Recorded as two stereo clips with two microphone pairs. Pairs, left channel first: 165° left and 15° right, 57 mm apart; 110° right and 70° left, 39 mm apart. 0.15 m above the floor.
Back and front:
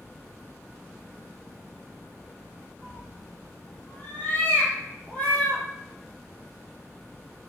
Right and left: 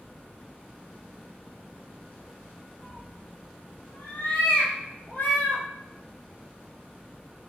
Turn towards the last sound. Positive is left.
turn(degrees=-125)